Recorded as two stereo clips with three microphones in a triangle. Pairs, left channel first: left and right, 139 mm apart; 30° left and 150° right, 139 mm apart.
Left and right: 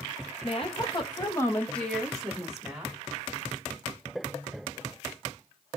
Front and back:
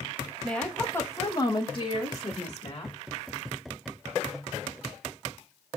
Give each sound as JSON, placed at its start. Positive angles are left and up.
{"t": 0.4, "sound": "a woman speaking", "azimuth_deg": 115, "distance_m": 0.8}